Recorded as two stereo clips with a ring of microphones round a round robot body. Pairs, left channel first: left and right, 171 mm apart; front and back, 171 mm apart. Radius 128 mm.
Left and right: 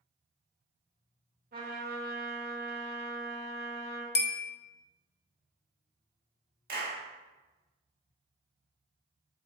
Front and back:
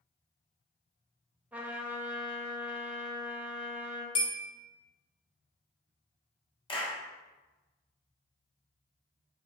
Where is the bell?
65° left, 0.6 m.